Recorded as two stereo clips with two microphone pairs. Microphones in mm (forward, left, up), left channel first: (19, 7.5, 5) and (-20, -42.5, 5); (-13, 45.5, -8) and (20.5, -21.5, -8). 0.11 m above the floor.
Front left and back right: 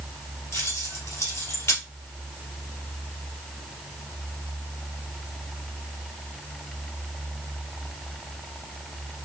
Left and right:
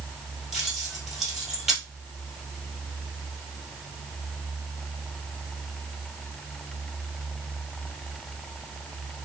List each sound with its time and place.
0.5 s keys jangling: 20° left, 1.6 m